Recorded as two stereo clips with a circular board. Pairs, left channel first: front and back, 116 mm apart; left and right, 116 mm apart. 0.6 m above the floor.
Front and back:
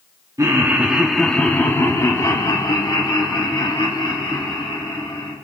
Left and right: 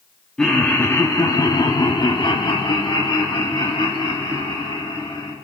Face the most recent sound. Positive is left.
turn(degrees=40)